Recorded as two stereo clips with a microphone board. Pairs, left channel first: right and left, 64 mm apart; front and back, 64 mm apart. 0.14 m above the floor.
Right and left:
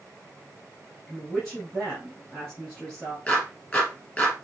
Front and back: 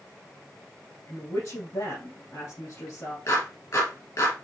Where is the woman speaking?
10° right, 3 m.